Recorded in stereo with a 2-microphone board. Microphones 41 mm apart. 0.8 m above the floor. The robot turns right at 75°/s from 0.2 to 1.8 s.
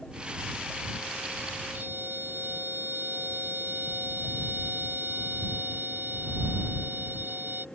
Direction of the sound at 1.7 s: 60° right (ahead or behind).